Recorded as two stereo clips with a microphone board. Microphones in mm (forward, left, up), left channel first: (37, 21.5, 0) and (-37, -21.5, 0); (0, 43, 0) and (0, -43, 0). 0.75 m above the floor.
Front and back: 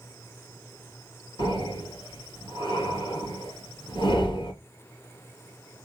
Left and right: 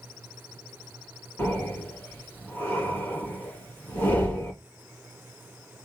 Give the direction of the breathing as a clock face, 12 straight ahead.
11 o'clock.